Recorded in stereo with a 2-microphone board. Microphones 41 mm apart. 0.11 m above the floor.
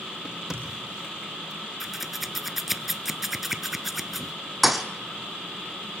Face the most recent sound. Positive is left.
turn(degrees=0)  # may be behind; listen again after turning